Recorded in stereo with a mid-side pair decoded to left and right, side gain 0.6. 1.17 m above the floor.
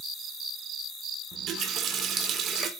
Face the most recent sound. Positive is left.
turn(degrees=-50)